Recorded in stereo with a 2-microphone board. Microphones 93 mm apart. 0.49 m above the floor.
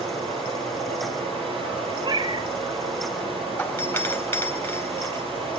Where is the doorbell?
20° left (ahead or behind), 2.5 m.